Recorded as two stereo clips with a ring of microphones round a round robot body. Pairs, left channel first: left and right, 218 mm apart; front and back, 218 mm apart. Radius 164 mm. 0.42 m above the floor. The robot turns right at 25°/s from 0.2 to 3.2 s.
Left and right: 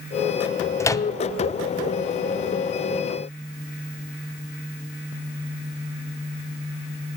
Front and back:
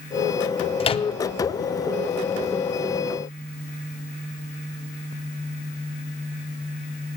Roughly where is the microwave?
Ahead left.